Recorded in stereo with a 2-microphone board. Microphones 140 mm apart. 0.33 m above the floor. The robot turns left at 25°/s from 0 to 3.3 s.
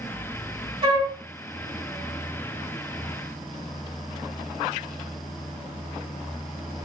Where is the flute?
40° right (ahead or behind), 1.6 m.